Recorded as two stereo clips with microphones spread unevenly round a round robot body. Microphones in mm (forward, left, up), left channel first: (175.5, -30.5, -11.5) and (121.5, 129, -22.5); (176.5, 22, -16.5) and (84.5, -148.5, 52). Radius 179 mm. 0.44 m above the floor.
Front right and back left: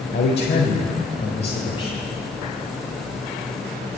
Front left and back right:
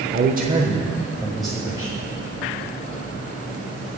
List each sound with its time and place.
0.1 s a man speaking: 80° right, 1.4 m; by 2.0 s 10° right, 3 m